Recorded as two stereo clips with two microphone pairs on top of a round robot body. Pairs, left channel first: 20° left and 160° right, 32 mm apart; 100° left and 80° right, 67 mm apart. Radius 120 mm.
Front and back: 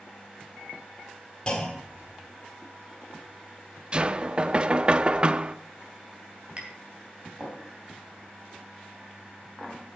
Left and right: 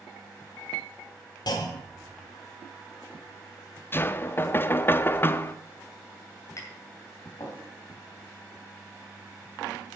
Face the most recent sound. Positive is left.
turn(degrees=145)